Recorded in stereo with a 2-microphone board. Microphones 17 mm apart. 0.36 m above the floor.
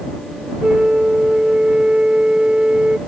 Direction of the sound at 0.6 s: 80° right.